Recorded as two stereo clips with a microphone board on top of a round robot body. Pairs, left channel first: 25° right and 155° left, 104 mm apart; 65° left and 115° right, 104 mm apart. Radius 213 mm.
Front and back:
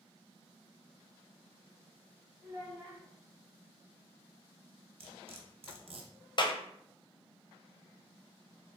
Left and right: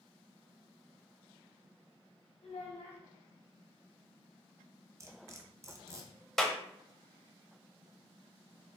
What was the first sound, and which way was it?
A child speaking, 95° left.